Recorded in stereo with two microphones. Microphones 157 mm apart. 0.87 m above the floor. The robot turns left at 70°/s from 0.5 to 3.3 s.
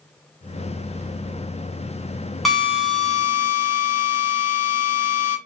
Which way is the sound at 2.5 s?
Straight behind.